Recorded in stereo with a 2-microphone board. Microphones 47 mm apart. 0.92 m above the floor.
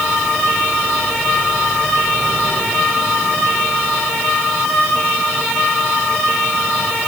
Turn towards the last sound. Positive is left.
No sound to turn to.